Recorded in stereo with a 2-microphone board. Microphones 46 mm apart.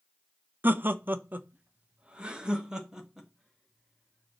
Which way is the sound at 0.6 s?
45° right (ahead or behind).